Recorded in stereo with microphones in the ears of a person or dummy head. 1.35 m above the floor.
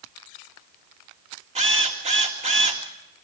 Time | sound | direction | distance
1.6 | a drill | 30° right (ahead or behind) | 2.0 m